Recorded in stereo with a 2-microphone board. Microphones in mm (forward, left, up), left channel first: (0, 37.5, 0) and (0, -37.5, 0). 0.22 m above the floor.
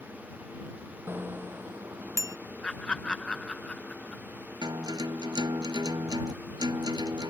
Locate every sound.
1.1 s a bicycle bell: 30° right (ahead or behind); by 2.4 s 45° right (ahead or behind)
2.6 s laughter: 10° left (ahead or behind)
4.6 s a guitar: 65° right (ahead or behind)